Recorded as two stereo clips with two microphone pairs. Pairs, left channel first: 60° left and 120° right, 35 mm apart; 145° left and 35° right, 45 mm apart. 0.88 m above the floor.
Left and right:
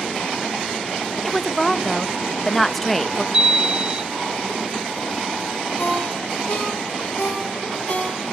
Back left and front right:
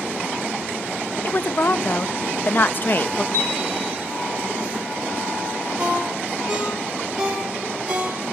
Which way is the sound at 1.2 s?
135° left.